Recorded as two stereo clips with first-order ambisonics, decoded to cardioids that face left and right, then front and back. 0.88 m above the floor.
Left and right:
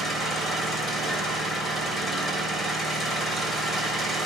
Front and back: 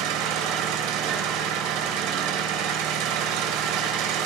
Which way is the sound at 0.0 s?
170° left.